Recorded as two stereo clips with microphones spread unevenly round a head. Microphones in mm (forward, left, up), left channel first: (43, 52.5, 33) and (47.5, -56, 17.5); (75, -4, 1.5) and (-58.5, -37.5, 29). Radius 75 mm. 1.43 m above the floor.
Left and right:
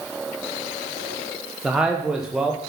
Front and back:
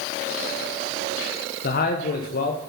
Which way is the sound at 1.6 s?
5° right.